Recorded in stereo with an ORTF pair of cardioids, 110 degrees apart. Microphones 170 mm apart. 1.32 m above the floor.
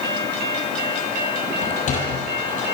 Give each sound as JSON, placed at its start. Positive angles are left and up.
{"t": 1.6, "sound": "a sliding door", "azimuth_deg": 50, "distance_m": 8.0}